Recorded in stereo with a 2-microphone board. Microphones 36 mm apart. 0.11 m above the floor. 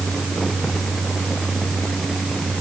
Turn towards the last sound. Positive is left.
No sound to turn to.